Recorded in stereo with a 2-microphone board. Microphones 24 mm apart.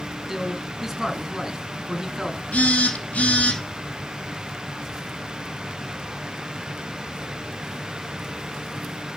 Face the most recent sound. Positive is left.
turn(degrees=70)  # may be behind; listen again after turning